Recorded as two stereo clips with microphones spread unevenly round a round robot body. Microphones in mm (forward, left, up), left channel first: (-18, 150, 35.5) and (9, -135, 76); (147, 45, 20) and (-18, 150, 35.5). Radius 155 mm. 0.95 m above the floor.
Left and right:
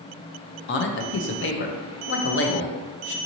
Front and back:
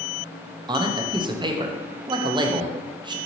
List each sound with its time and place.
0.7 s a man speaking: 80° left, 0.6 m